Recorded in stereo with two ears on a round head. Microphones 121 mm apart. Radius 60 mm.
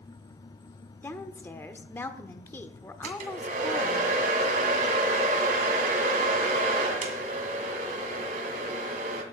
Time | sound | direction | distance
1.0 | a woman speaking | 15° left (ahead or behind) | 1.0 m
3.0 | a hair dryer | 60° right (ahead or behind) | 2 m